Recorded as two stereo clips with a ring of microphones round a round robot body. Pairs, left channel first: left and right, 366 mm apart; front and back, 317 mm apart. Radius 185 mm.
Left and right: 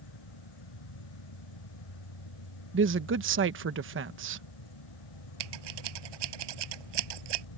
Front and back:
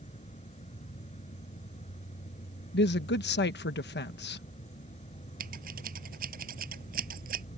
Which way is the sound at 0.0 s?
70° left.